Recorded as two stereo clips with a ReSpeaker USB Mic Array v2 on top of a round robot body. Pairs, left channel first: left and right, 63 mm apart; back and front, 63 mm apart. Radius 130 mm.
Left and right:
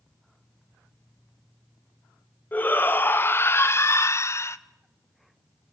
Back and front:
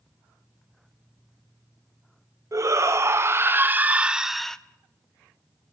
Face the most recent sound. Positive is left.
turn(degrees=105)